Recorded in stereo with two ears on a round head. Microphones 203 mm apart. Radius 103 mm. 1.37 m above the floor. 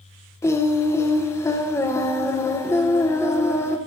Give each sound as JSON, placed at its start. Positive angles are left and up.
{"t": 0.4, "sound": "singing", "side_deg": 10, "distance_m": 0.6}